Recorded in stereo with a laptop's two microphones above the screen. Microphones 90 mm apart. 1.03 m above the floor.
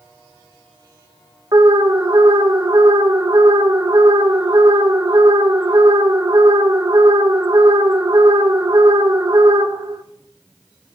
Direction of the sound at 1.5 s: 45° right (ahead or behind).